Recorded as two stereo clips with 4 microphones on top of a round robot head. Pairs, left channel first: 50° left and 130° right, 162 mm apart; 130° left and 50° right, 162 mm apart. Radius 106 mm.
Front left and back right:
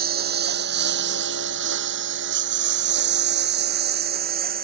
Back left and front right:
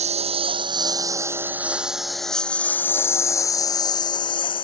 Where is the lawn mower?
100° right; by 4.6 s 165° right.